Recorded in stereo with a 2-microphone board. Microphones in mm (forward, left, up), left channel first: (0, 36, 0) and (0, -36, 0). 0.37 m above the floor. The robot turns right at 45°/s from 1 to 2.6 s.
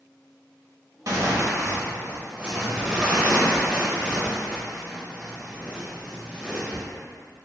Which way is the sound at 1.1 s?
85° right.